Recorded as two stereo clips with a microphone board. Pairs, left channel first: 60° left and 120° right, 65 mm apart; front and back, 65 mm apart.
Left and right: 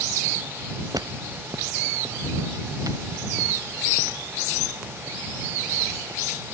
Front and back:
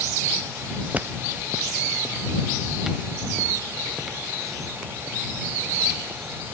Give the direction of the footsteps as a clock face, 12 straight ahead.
4 o'clock.